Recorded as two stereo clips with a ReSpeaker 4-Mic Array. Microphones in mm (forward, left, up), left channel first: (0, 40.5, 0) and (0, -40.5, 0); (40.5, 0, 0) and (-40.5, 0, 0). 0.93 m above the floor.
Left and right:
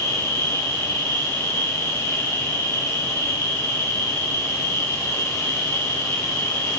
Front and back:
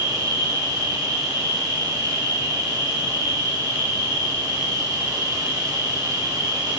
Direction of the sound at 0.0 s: 145° left.